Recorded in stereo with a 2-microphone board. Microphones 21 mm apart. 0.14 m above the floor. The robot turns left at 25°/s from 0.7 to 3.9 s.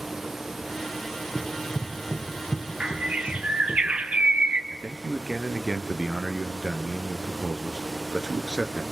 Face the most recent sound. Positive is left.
turn(degrees=-40)  # may be behind; listen again after turning